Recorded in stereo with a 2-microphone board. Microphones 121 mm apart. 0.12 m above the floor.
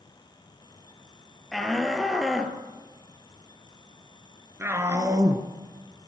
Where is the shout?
5° left (ahead or behind), 3 m; by 5.5 s 30° right (ahead or behind), 1.9 m.